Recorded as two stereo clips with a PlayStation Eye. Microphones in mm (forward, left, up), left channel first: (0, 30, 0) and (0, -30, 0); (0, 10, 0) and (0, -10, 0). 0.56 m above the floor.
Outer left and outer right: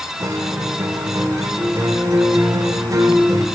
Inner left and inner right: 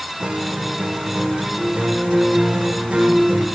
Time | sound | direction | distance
0.2 | a guitar | 65° right (ahead or behind) | 1.0 m